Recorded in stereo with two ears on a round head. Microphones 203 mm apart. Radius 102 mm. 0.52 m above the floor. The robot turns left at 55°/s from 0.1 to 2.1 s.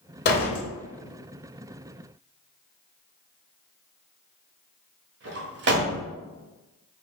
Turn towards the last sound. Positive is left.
turn(degrees=-50)  # may be behind; listen again after turning